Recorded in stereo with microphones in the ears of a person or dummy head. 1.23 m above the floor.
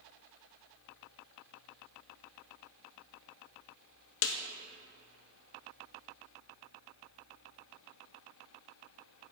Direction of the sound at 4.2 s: 60° left (ahead or behind).